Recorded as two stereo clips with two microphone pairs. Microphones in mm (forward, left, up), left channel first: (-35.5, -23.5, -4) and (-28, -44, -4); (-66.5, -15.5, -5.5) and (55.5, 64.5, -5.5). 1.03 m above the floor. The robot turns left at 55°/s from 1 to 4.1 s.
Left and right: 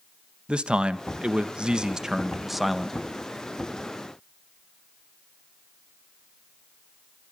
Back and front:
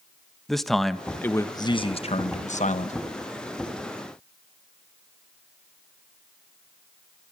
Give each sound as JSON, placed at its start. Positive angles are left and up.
{"t": 0.5, "sound": "a man speaking", "azimuth_deg": -60, "distance_m": 1.3}